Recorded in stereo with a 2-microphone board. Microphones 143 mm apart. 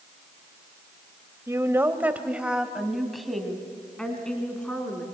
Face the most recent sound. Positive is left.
turn(degrees=10)  # may be behind; listen again after turning